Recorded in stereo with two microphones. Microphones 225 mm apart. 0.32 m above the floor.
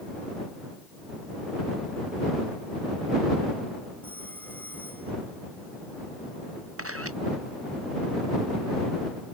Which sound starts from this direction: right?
A camera shutter, at 6.8 s.